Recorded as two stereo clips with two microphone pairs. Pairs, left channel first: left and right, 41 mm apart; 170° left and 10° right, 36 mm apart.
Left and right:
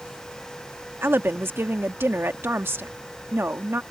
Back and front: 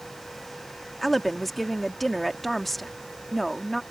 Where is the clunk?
No clunk in this recording.